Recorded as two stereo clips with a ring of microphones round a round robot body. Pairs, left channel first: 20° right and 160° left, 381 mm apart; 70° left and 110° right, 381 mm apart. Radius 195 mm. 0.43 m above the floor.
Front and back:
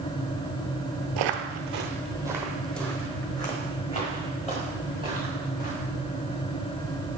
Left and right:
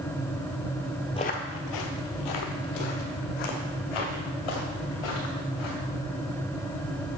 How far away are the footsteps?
About 0.6 m.